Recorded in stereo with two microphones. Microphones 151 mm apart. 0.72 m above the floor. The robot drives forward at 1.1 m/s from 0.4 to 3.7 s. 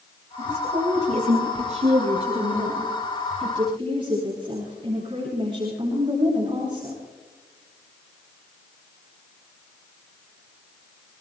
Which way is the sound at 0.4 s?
50° right (ahead or behind).